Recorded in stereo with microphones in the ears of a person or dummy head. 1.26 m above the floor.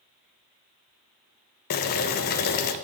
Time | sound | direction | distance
1.7 | boiling | 50° left (ahead or behind) | 0.5 m